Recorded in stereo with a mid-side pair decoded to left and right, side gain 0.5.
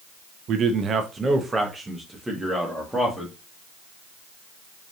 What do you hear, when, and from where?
0.5 s a man speaking: 60° right, 0.8 m; by 3.3 s straight ahead, 1.8 m